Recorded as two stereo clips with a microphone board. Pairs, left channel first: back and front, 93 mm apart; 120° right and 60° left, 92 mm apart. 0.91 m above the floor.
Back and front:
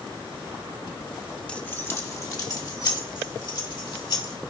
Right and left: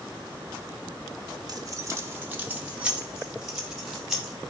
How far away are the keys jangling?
About 0.7 m.